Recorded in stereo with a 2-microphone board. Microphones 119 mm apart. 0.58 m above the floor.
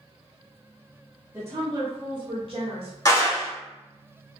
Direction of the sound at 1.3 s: 20° right (ahead or behind).